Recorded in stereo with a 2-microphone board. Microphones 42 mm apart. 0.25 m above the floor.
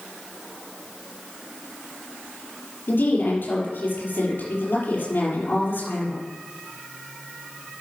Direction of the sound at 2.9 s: 55° left (ahead or behind).